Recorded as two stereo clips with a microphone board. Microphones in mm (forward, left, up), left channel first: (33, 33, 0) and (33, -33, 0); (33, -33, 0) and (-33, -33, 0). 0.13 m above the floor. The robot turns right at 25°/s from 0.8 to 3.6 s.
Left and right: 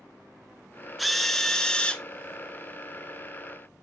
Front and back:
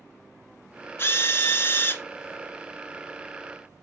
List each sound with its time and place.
1.0 s a drill: 5° right, 0.8 m; by 2.0 s 25° left, 0.8 m